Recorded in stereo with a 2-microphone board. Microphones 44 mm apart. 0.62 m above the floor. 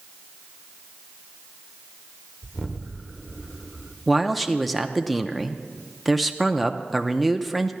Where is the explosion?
Centre (ahead or behind), 1.0 m.